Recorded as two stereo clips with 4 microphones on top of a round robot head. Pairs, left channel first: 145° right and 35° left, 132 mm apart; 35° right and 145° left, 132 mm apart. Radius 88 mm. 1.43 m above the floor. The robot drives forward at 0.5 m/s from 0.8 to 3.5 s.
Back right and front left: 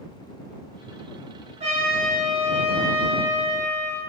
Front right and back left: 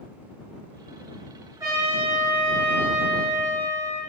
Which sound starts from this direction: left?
A trumpet, at 1.6 s.